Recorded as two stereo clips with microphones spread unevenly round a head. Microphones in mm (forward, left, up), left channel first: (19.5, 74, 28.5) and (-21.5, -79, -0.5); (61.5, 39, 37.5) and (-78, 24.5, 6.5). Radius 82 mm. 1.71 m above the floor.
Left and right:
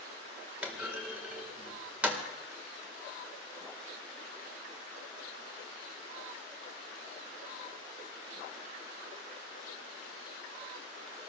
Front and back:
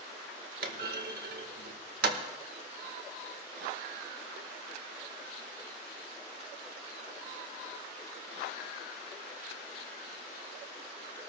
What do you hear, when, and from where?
0.6 s a clunk: 170° left, 1.8 m